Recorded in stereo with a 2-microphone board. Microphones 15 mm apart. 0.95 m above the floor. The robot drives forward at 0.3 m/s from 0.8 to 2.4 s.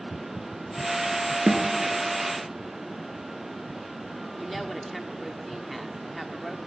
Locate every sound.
1.5 s a snare drum: 70° right (ahead or behind), 3 m; by 1.7 s 75° right (ahead or behind), 3 m
4.4 s a woman speaking: centre (ahead or behind), 1.8 m